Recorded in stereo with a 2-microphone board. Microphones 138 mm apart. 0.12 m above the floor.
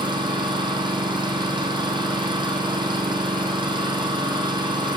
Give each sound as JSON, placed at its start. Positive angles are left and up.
{"t": 0.0, "sound": "an engine running", "side_deg": -35, "distance_m": 2.5}